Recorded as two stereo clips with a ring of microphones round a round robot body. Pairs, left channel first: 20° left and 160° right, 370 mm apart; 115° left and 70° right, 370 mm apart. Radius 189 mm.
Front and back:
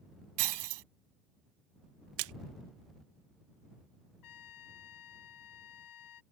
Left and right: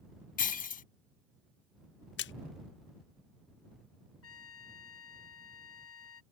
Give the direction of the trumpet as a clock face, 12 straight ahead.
10 o'clock.